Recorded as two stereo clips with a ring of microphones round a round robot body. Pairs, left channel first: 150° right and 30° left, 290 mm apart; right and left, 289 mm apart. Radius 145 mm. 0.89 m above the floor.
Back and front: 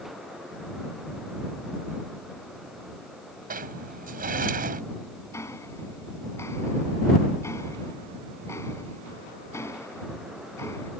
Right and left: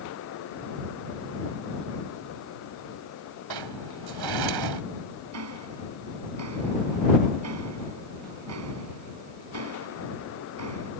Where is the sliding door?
90° left.